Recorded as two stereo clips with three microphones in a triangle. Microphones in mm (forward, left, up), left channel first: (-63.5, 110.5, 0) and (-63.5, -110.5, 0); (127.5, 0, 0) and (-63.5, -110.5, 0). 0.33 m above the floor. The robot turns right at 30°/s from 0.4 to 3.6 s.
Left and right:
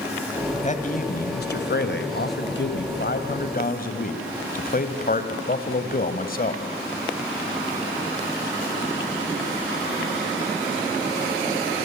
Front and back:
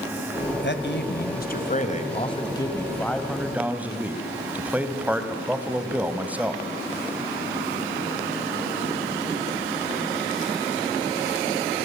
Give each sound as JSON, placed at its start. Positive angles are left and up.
{"t": 0.6, "sound": "a man speaking", "azimuth_deg": 40, "distance_m": 2.0}